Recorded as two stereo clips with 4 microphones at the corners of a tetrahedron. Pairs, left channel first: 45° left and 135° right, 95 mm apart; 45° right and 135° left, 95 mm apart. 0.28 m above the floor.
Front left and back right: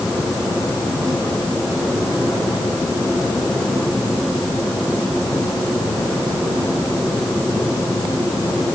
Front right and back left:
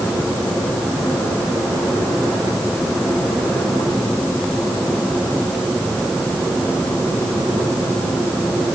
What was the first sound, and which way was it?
Only background noise.